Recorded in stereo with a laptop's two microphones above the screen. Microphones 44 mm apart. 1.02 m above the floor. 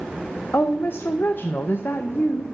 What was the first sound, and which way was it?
A woman speaking, 55° left (ahead or behind).